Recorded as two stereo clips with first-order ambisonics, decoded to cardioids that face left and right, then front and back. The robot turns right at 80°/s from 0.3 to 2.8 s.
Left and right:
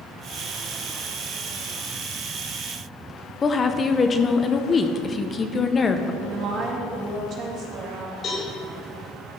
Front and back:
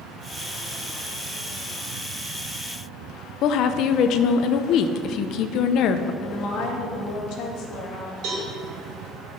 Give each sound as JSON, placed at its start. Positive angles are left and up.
{"t": 3.4, "sound": "a woman speaking", "azimuth_deg": 25, "distance_m": 0.6}
{"t": 6.2, "sound": "a woman speaking", "azimuth_deg": -40, "distance_m": 2.5}
{"t": 8.2, "sound": "a cowbell", "azimuth_deg": 150, "distance_m": 4.5}